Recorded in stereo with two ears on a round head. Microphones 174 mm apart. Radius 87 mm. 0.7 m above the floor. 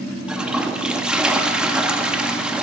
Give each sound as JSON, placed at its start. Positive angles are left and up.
{"t": 0.3, "sound": "a toilet flushing", "side_deg": -5, "distance_m": 0.6}